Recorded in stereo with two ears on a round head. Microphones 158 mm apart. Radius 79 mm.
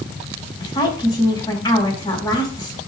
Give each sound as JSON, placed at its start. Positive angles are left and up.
{"t": 0.6, "sound": "a woman speaking", "side_deg": 25, "distance_m": 3.5}